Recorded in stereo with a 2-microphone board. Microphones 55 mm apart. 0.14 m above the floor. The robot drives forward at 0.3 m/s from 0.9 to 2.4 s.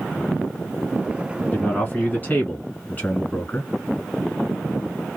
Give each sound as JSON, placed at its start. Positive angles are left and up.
{"t": 1.5, "sound": "a man speaking", "side_deg": 30, "distance_m": 1.8}